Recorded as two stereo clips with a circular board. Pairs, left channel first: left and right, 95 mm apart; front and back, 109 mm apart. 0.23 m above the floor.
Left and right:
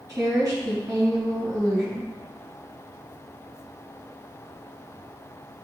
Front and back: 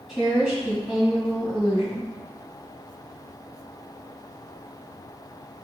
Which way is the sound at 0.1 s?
100° right.